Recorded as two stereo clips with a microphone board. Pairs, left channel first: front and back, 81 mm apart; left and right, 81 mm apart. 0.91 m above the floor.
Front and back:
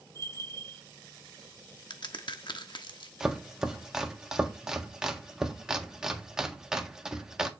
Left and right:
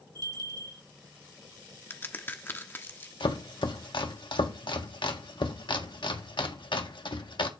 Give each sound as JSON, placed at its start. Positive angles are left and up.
{"t": 0.1, "sound": "a bell", "azimuth_deg": -55, "distance_m": 3.5}
{"t": 1.9, "sound": "a crack", "azimuth_deg": 25, "distance_m": 1.2}
{"t": 3.2, "sound": "chopping", "azimuth_deg": 95, "distance_m": 1.5}